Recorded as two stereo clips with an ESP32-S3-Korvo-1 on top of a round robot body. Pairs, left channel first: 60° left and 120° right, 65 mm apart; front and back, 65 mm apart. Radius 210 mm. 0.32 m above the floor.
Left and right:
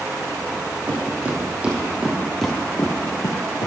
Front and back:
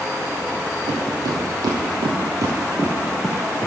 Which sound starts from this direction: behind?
Footsteps, at 0.9 s.